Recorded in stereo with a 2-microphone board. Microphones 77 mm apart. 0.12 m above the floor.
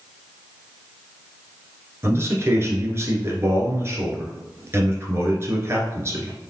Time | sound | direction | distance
2.0 | a man speaking | 35° right (ahead or behind) | 1.6 m